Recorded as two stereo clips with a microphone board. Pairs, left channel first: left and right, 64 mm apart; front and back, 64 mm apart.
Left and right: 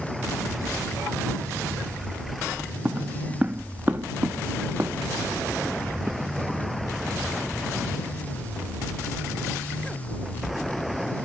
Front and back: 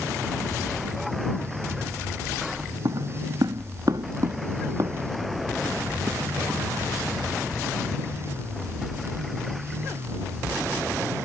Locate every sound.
2.9 s footsteps: 155° right; by 7.1 s 140° right